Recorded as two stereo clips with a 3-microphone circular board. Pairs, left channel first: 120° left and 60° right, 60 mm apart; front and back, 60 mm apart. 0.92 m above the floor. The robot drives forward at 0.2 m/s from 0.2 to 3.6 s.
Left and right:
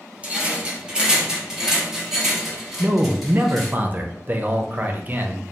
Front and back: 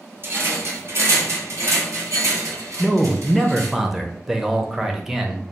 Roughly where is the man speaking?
Right.